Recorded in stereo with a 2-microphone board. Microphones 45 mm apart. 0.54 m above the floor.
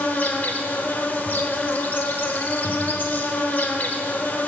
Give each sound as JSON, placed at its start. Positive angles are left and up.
{"t": 0.0, "sound": "an insect", "side_deg": 40, "distance_m": 0.9}